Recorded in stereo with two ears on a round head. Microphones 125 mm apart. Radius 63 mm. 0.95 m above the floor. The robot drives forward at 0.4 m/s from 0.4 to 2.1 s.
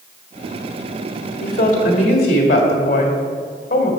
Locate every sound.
1.4 s a woman speaking: 65° left (ahead or behind), 1.3 m; by 3.9 s 55° left (ahead or behind), 1.5 m